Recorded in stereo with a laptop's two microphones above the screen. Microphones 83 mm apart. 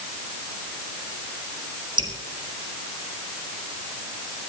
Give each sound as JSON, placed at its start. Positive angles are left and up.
{"t": 2.0, "sound": "dripping", "side_deg": -70, "distance_m": 4.0}